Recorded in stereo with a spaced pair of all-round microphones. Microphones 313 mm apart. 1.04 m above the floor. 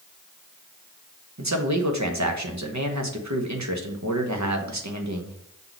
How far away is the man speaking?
About 1.0 m.